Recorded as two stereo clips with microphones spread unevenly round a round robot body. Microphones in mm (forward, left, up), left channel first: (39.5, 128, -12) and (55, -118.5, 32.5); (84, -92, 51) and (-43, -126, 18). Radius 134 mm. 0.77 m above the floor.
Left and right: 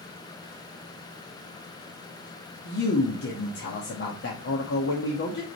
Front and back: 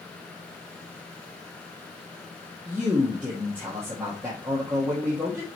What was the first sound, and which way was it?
A man speaking, 120° left.